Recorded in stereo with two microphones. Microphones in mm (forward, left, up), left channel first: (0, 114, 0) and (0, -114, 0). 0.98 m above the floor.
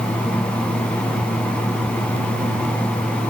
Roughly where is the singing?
No singing in this recording.